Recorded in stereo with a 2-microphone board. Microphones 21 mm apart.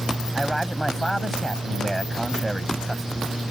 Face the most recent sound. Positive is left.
turn(degrees=10)  # may be behind; listen again after turning